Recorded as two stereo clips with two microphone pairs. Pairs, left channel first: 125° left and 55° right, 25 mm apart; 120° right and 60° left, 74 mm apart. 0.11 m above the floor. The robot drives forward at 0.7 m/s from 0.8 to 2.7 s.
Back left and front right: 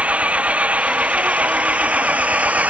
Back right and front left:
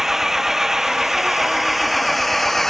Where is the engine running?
25° right; by 2.7 s 30° right.